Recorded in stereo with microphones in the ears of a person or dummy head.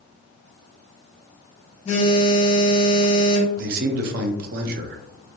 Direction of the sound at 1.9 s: 45° left (ahead or behind).